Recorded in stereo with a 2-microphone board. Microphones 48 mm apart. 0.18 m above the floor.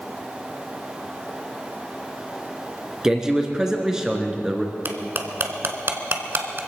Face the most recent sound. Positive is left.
turn(degrees=-55)  # may be behind; listen again after turning